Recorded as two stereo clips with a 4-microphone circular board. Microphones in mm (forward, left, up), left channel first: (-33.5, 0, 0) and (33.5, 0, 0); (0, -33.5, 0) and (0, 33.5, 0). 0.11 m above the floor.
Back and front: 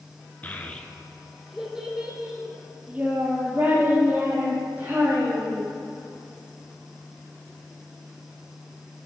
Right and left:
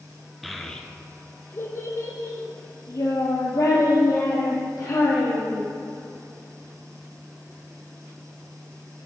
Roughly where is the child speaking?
Behind.